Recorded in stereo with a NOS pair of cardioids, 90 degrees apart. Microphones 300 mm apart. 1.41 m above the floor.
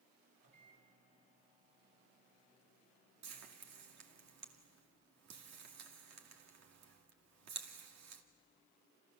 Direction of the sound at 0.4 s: 50° right.